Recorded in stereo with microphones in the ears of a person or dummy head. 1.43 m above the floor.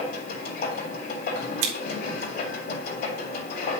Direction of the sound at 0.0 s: 55° left (ahead or behind).